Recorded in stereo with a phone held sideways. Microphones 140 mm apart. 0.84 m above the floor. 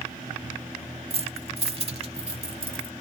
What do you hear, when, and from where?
1.1 s keys jangling: 40° right (ahead or behind); by 2.9 s 45° right (ahead or behind)